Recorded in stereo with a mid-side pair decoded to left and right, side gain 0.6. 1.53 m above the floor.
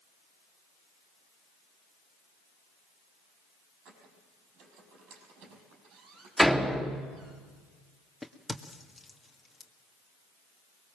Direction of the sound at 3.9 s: 70° right.